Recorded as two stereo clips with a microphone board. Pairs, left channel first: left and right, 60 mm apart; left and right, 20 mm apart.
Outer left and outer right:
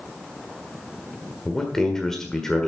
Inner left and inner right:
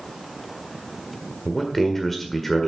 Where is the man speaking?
10° left (ahead or behind), 1.6 m.